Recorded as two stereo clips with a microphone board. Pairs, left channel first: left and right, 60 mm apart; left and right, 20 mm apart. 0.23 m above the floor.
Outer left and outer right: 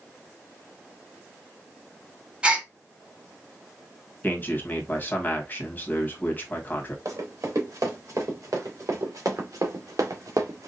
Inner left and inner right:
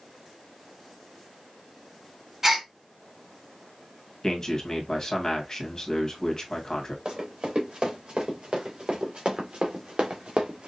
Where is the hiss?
I don't hear a hiss.